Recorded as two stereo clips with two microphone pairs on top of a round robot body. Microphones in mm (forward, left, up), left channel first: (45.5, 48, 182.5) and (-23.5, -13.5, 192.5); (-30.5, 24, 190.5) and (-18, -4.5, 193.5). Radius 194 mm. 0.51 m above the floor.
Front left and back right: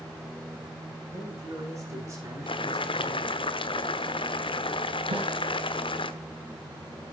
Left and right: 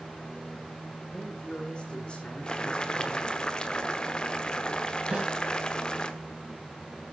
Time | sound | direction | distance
1.1 | a man speaking | 160° left | 7.5 m
2.5 | boiling | 55° left | 1.1 m
5.1 | a snare drum | 120° right | 3.5 m